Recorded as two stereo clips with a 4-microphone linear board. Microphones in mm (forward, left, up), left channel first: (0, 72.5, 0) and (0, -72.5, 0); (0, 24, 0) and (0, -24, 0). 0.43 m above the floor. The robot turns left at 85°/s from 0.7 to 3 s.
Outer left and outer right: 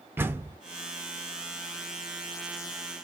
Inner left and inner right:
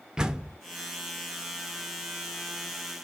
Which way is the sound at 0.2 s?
15° right (ahead or behind).